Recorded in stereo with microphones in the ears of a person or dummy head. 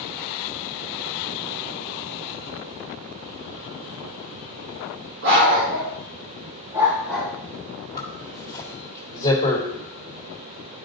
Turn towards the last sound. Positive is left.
turn(degrees=20)  # may be behind; listen again after turning